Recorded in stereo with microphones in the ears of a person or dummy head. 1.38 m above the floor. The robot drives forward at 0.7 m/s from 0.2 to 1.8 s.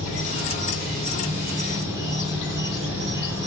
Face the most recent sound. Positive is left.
turn(degrees=-10)  # may be behind; listen again after turning